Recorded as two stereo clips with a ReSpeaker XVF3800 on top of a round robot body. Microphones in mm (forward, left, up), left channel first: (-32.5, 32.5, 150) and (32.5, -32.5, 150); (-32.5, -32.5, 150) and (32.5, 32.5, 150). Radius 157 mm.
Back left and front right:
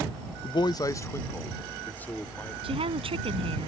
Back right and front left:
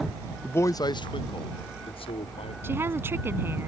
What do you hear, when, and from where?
0.4 s a man speaking: 150° left; by 2.5 s 150° right
2.6 s a woman speaking: 20° right